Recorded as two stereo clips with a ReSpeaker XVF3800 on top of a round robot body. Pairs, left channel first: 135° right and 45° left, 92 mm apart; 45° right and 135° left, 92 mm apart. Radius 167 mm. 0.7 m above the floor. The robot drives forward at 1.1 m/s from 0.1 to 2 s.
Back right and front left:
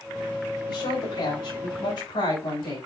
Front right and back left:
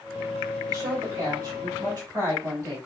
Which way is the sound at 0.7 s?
165° right.